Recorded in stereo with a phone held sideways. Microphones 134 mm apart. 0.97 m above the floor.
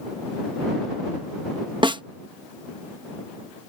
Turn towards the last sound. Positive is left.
turn(degrees=-35)  # may be behind; listen again after turning